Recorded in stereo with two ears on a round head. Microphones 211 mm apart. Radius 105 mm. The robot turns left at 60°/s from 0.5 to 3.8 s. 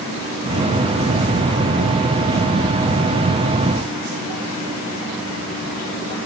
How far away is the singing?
I don't hear singing.